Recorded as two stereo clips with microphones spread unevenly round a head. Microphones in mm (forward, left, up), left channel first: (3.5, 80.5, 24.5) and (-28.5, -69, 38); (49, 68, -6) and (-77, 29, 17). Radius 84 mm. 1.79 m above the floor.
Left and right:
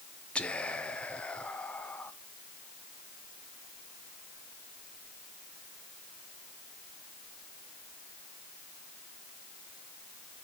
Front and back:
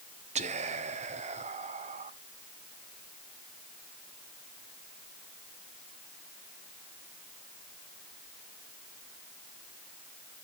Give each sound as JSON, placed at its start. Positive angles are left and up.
{"t": 0.3, "sound": "whispering", "azimuth_deg": 160, "distance_m": 1.2}